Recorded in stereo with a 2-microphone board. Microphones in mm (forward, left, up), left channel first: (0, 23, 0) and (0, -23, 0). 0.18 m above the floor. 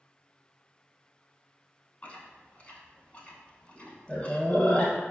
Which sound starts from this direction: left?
Chewing, at 2.0 s.